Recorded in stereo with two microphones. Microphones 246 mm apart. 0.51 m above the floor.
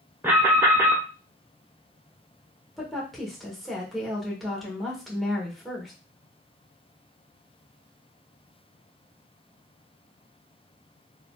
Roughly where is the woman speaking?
Centre.